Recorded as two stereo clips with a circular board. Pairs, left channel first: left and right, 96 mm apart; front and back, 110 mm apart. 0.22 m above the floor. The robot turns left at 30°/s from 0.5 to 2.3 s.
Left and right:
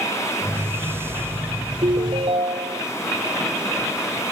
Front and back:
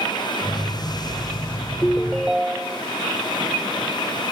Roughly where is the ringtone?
Right.